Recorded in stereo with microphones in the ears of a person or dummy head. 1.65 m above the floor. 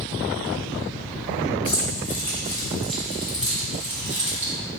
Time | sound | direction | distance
1.6 | keys jangling | 20° left (ahead or behind) | 1.3 m